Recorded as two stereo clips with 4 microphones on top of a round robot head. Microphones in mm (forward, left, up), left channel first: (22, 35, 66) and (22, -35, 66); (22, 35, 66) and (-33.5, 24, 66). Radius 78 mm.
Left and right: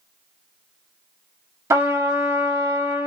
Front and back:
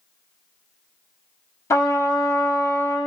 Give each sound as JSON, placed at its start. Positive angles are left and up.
{"t": 1.7, "sound": "a trumpet", "azimuth_deg": -45, "distance_m": 1.1}